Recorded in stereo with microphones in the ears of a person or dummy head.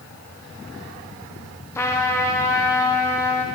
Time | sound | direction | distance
1.8 | a trumpet | 15° left (ahead or behind) | 0.7 m